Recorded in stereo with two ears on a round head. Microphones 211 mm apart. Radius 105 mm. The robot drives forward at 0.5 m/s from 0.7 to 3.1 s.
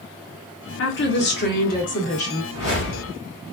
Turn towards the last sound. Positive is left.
turn(degrees=45)  # may be behind; listen again after turning